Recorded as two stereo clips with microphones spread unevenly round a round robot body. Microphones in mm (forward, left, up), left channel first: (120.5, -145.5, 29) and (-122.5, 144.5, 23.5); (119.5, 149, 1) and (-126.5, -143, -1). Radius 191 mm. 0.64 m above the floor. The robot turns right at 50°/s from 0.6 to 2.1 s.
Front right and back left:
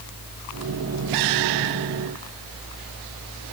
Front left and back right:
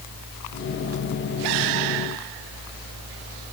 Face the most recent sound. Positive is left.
No sound to turn to.